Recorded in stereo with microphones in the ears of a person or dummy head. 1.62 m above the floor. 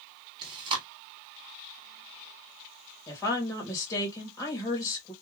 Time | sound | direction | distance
0.4 | chewing | 25° right (ahead or behind) | 1.4 m
3.1 | a woman speaking | 15° left (ahead or behind) | 1.3 m